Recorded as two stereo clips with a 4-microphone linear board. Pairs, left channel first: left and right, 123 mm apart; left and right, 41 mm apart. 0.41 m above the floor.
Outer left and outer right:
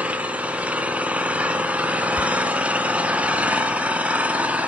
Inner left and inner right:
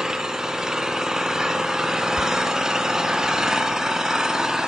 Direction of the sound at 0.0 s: 10° right (ahead or behind).